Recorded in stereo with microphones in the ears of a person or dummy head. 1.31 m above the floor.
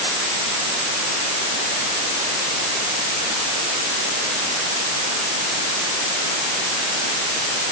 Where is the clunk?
No clunk in this recording.